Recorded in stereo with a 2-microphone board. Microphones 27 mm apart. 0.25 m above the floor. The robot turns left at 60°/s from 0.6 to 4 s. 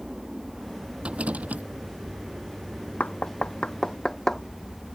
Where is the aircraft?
15° right; by 5.0 s 140° left.